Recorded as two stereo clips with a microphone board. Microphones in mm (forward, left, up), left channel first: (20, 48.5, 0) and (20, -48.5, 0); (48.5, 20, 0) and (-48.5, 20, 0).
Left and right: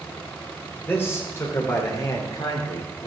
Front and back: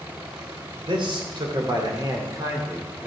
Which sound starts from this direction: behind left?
A man speaking, at 0.8 s.